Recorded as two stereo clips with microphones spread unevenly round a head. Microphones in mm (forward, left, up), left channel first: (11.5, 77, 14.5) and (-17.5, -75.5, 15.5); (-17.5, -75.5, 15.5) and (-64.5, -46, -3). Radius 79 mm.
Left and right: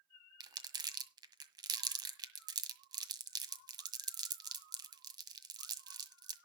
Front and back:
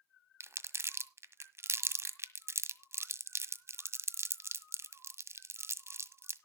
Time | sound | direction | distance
0.4 | crumpling | 165° right | 1.6 m